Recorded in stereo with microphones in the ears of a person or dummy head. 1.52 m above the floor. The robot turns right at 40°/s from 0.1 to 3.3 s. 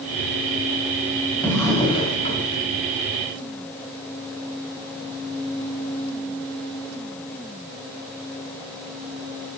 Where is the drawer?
15° left, 2.5 m; by 2.4 s 55° left, 2.5 m.